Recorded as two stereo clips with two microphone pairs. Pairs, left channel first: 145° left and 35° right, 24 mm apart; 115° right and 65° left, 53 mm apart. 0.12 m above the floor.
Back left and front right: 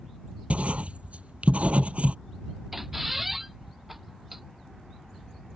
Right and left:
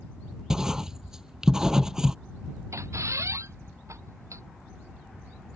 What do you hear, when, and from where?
0.5 s writing: 15° right
2.7 s a squeak: 50° left